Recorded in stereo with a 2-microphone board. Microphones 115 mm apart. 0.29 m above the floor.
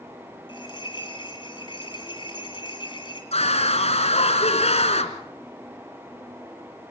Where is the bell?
45° left (ahead or behind), 2.5 m.